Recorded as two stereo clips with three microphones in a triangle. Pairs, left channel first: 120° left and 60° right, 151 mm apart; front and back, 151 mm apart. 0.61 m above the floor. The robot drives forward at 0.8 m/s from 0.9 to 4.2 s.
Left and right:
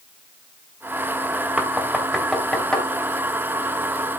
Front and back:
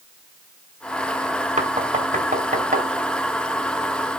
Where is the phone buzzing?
I don't hear a phone buzzing.